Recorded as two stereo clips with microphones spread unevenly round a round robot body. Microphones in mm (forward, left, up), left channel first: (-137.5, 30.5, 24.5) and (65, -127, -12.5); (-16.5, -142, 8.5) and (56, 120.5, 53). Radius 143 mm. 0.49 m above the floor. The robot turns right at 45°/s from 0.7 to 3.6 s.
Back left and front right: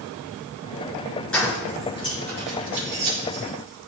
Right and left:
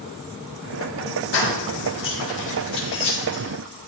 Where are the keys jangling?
130° right, 5 m; by 3.9 s 30° right, 5 m.